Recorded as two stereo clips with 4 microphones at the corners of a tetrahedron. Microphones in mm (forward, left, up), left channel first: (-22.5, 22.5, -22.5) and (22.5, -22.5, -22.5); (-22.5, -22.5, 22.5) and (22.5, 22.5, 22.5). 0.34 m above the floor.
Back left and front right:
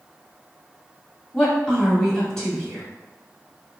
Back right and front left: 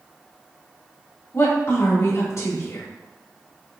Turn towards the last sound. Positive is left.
turn(degrees=-150)